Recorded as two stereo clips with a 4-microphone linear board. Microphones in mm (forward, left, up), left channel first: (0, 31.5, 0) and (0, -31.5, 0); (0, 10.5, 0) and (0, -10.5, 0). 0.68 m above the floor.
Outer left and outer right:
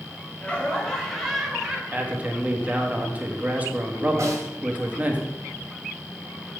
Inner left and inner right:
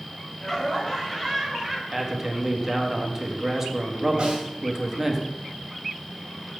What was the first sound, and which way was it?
Laughter, 20° left (ahead or behind).